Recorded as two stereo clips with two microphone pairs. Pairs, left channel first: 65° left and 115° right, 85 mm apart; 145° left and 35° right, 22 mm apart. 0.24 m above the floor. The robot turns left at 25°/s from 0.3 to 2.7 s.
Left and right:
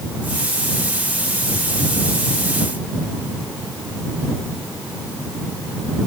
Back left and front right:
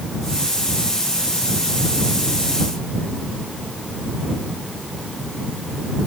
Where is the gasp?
No gasp in this recording.